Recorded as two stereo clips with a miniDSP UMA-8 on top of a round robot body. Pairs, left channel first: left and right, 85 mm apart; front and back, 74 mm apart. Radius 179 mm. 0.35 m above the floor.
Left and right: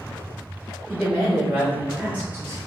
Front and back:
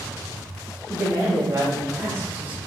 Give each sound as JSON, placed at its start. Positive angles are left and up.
{"t": 0.9, "sound": "a woman speaking", "azimuth_deg": 175, "distance_m": 1.8}